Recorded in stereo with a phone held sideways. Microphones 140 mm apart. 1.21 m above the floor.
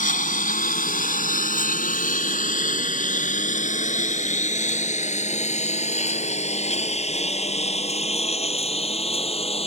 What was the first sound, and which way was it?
A lawn mower, 70° left (ahead or behind).